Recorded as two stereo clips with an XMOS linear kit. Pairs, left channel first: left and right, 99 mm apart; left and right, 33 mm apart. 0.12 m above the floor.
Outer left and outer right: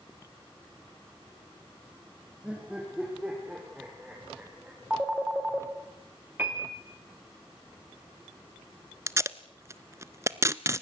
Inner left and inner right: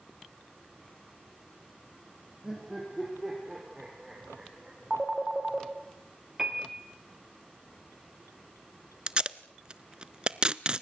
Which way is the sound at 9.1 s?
30° right (ahead or behind).